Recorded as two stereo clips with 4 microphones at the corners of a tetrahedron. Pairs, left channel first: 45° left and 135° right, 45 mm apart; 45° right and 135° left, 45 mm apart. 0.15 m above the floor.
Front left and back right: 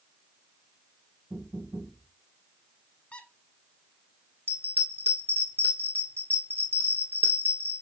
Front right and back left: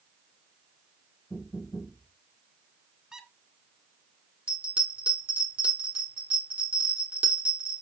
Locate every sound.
1.3 s knocking: 120° right, 1.7 m
3.1 s a squeak: 75° left, 1.0 m
4.5 s a bell: 170° right, 2 m